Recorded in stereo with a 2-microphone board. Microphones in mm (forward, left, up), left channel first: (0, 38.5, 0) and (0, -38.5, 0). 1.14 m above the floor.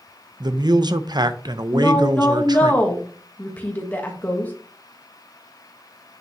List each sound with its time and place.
0.4 s a man speaking: 65° right (ahead or behind), 0.7 m
1.7 s a woman speaking: 20° left (ahead or behind), 1.4 m